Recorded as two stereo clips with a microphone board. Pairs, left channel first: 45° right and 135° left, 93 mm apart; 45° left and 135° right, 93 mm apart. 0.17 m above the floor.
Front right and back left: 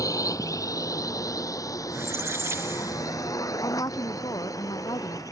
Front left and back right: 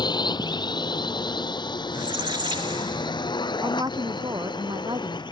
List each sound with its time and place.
0.0 s a drone: 5° left
1.9 s a squeak: 165° right
3.6 s a woman speaking: 90° right